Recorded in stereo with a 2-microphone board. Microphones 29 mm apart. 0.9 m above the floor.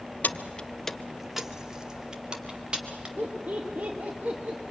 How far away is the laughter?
About 1.6 m.